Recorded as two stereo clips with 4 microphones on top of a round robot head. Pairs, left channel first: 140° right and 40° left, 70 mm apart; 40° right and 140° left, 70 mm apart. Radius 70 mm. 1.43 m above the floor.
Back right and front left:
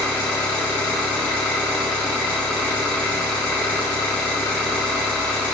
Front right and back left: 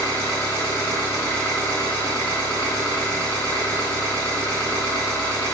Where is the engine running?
80° right, 1.4 m.